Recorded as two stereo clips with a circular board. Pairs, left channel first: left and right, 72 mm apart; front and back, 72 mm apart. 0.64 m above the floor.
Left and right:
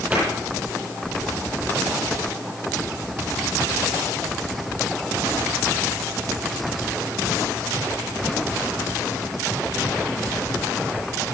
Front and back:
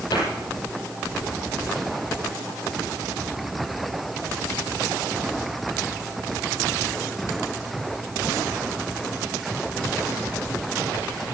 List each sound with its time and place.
0.1 s a cupboard door: 20° right, 7.5 m